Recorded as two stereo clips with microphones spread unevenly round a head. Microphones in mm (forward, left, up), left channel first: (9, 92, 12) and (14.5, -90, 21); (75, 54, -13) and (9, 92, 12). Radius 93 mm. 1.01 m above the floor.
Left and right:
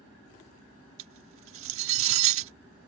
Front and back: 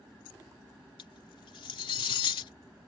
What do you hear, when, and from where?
1.0 s cutlery clinking: 75° right